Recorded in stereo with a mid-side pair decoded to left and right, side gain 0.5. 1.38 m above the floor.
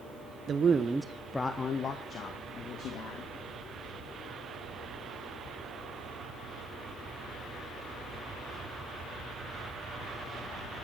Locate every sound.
0.5 s a man speaking: 50° right, 0.8 m; by 3.3 s 65° left, 2.0 m